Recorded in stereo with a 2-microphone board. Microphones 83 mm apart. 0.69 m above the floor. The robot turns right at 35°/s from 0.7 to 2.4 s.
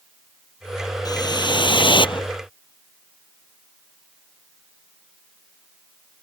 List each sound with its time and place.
1.1 s a whoosh: 55° left; by 2.3 s 100° left